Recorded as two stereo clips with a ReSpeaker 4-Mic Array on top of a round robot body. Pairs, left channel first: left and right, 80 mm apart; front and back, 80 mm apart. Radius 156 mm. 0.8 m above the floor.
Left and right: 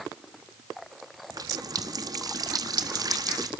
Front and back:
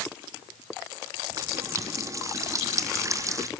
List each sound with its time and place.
1.3 s a running tap: 130° right, 1.2 m